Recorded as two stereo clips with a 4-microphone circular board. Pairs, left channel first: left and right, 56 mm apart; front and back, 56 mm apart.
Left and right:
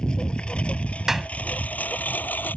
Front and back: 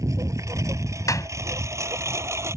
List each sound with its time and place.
0.0 s a lawn mower: 165° left; by 2.6 s 145° left
1.1 s a clap: 5° right